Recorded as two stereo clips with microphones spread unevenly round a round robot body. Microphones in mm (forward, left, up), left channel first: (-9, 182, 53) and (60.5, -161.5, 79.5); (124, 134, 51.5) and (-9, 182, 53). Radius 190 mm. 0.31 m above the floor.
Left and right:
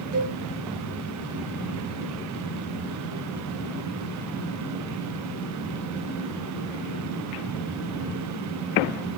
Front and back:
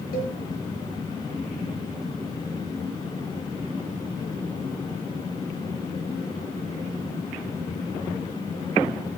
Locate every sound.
0.1 s a cowbell: 10° right, 4.5 m